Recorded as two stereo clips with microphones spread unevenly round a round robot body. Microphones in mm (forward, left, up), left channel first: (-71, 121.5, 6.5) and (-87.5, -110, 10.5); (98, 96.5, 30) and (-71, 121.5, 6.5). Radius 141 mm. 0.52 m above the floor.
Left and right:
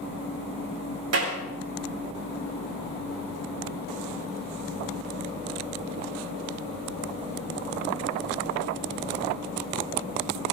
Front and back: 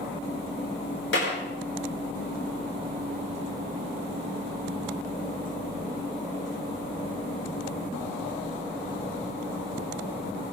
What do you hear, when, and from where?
1.1 s a clap: 55° right, 8 m